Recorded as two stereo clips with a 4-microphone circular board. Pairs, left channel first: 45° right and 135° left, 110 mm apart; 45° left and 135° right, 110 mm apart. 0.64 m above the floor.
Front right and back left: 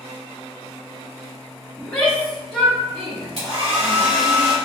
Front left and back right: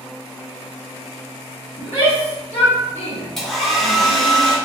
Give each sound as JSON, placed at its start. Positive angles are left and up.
{"t": 1.8, "sound": "a shout", "azimuth_deg": 30, "distance_m": 1.0}
{"t": 3.4, "sound": "a hair dryer", "azimuth_deg": 130, "distance_m": 1.5}